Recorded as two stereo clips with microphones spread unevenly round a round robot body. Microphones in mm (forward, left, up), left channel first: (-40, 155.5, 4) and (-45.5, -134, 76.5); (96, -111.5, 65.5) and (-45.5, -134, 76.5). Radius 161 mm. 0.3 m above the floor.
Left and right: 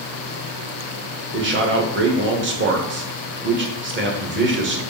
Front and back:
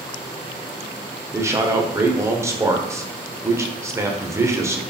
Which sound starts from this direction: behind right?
A man speaking, at 1.3 s.